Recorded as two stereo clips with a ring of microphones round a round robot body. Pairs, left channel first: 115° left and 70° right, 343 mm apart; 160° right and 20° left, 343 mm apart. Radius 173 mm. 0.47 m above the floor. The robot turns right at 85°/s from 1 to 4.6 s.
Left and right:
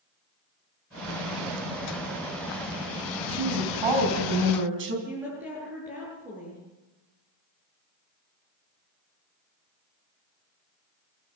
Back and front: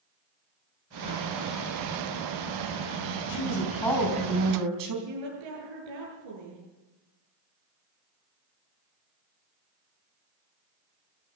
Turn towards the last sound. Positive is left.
turn(degrees=20)